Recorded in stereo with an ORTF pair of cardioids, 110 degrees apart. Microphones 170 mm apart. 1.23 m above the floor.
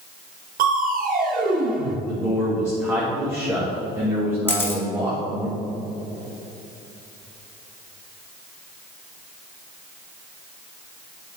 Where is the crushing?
55° right, 1.1 m.